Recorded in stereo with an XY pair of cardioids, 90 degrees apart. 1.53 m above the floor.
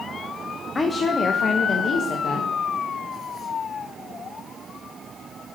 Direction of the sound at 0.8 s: 30° left.